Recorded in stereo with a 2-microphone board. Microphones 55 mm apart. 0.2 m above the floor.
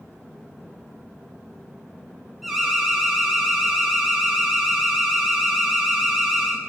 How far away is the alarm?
About 1.1 m.